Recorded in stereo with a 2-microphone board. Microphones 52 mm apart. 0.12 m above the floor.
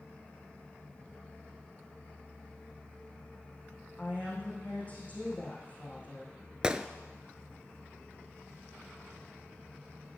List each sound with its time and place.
4.0 s a woman speaking: 30° left (ahead or behind), 5.5 m
6.6 s a gunshot: 20° right (ahead or behind), 0.6 m